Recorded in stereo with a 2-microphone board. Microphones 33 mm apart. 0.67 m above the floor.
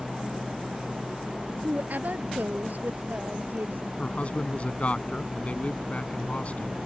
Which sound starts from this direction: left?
A man speaking, at 4.0 s.